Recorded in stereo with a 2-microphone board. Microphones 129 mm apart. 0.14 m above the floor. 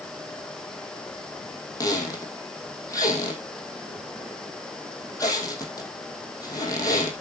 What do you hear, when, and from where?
1.8 s a squeak: 30° left (ahead or behind), 2.5 m